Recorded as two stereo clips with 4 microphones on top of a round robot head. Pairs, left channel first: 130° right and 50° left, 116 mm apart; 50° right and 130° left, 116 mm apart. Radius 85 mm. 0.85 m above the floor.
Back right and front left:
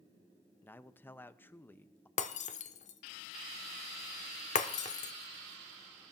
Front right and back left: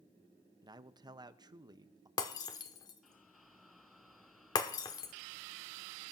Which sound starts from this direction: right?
Breaking glass, at 2.2 s.